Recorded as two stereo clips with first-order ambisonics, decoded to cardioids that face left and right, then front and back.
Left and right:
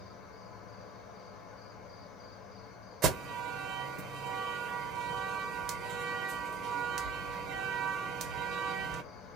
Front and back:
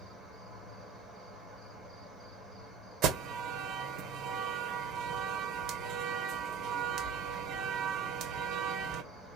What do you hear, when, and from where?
0.0 s an insect: 85° left, 1.5 m
3.0 s an alarm: 140° right, 0.7 m